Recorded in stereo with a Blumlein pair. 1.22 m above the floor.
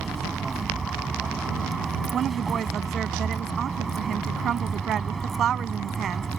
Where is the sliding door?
No sliding door in this recording.